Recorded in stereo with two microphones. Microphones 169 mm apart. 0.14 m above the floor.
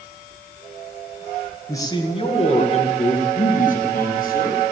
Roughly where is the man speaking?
Centre.